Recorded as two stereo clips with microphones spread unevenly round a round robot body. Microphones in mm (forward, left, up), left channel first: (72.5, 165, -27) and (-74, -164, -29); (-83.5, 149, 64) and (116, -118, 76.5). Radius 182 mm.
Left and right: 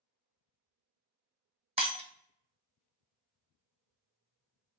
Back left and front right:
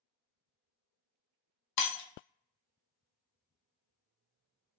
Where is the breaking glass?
170° left, 1.2 m.